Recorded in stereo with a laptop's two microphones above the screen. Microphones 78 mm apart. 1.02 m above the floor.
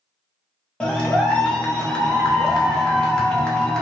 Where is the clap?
10° left (ahead or behind), 0.6 m.